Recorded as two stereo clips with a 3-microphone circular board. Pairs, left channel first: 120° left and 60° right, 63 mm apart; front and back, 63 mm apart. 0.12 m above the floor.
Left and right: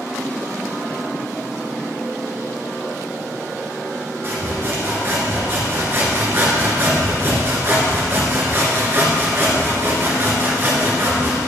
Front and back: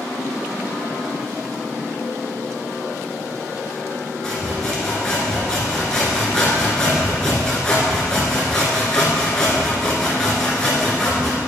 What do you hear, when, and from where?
4.2 s sawing: 75° right, 1.5 m